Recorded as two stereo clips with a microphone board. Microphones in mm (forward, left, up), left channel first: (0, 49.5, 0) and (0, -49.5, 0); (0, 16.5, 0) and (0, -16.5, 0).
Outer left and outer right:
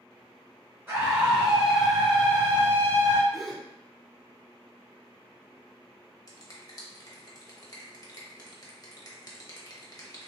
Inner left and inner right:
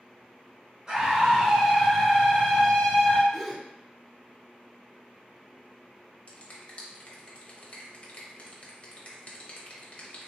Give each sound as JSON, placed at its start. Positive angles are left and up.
{"t": 0.9, "sound": "a scream", "side_deg": -30, "distance_m": 1.1}
{"t": 3.3, "sound": "a gasp", "side_deg": 0, "distance_m": 0.6}
{"t": 6.3, "sound": "a finger snap", "side_deg": 40, "distance_m": 0.8}